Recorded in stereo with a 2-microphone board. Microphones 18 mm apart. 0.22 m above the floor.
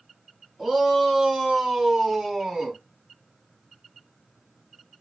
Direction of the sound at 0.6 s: 25° right (ahead or behind).